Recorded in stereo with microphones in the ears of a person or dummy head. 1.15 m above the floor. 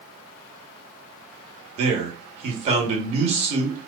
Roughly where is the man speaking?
Right.